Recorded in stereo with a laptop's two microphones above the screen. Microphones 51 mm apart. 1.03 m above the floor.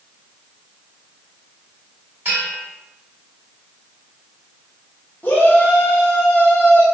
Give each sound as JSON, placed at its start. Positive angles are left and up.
{"t": 2.2, "sound": "a bell", "side_deg": -45, "distance_m": 1.9}
{"t": 5.2, "sound": "a shout", "side_deg": 45, "distance_m": 1.0}